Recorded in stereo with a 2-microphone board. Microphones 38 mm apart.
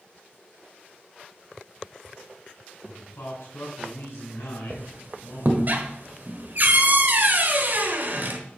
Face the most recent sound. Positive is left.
turn(degrees=-50)  # may be behind; listen again after turning